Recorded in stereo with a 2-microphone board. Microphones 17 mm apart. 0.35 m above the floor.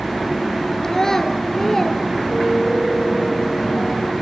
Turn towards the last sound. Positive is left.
turn(degrees=-65)  # may be behind; listen again after turning